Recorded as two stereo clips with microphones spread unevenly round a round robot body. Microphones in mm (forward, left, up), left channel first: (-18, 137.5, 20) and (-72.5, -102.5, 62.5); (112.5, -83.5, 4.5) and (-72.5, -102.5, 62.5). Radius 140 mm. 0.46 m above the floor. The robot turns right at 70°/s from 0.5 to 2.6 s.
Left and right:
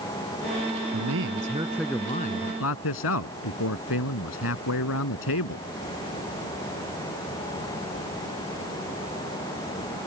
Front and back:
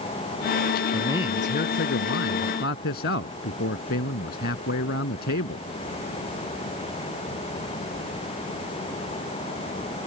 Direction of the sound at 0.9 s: 75° right.